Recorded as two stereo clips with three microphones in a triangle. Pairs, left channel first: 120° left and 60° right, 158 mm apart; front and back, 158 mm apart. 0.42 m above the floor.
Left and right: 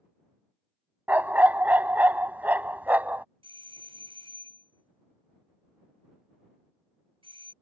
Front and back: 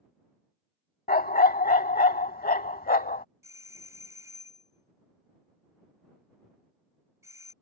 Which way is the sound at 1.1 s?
20° left.